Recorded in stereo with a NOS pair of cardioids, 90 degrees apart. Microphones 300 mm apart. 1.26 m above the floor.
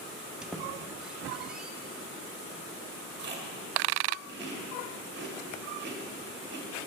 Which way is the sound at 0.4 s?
5° right.